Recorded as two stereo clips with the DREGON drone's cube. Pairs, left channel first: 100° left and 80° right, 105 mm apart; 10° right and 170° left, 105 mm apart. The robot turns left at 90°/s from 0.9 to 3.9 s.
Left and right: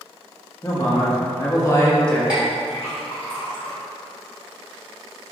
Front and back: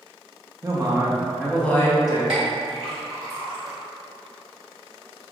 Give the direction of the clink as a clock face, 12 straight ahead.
5 o'clock.